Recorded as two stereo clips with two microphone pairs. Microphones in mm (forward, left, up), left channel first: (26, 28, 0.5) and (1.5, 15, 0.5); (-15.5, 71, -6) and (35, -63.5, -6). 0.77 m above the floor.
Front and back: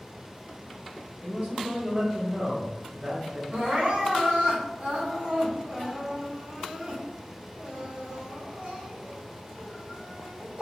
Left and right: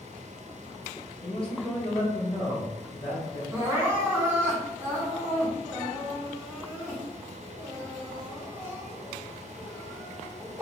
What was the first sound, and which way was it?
A man speaking, 155° left.